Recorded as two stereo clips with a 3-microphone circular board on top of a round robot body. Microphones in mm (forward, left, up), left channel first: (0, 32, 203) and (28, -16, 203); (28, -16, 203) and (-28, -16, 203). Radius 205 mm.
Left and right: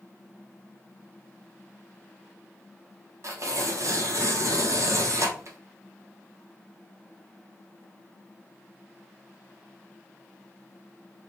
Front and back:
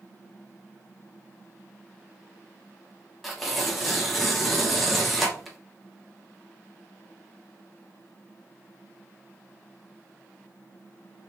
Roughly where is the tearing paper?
Right.